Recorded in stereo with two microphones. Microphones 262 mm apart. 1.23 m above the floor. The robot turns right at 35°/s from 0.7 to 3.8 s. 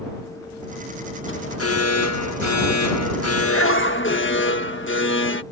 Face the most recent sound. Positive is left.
turn(degrees=135)